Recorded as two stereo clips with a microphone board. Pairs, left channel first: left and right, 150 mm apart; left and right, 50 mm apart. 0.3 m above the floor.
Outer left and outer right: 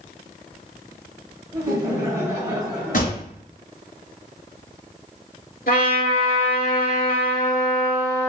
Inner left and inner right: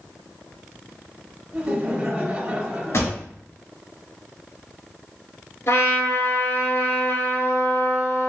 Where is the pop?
65° left (ahead or behind), 2 m.